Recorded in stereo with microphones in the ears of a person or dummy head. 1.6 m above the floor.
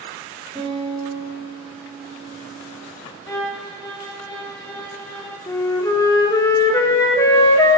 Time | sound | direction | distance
0.6 | a guitar | 15° right (ahead or behind) | 4.5 m
3.3 | a violin | 20° left (ahead or behind) | 1.5 m
5.5 | a flute | 20° left (ahead or behind) | 1.1 m